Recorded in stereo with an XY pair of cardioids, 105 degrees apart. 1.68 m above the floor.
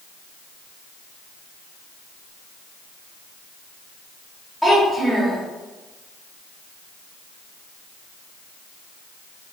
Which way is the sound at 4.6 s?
Straight ahead.